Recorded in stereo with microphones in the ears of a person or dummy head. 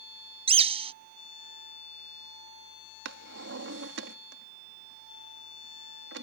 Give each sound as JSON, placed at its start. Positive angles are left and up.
{"t": 0.5, "sound": "a bird", "side_deg": -20}
{"t": 3.0, "sound": "a drawer", "side_deg": -75}